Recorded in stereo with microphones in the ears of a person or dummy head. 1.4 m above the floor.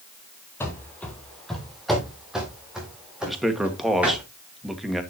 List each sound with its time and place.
0.6 s running footsteps: 10° left (ahead or behind), 1.8 m; by 4.2 s 5° right (ahead or behind), 5 m
3.3 s a man speaking: centre (ahead or behind), 1.9 m